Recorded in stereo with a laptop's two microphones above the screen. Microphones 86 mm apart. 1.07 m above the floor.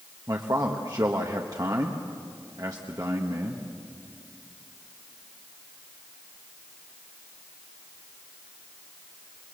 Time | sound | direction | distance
0.3 | a man speaking | 45° right (ahead or behind) | 1.2 m